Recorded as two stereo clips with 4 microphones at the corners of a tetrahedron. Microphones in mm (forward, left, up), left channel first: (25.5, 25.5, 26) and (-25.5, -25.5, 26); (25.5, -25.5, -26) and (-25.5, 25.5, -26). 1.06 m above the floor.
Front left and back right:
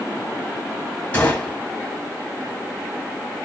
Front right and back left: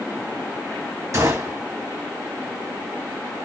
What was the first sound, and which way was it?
A gunshot, 110° left.